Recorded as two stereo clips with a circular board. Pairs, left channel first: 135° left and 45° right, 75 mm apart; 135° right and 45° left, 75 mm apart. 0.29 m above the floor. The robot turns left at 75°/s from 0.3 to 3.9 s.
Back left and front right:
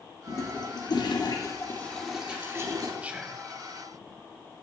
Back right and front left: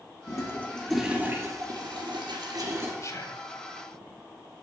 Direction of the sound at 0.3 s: 175° right.